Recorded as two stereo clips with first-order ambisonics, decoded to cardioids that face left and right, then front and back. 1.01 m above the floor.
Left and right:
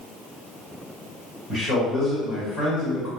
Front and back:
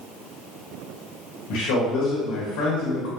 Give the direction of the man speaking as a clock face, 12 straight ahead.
11 o'clock.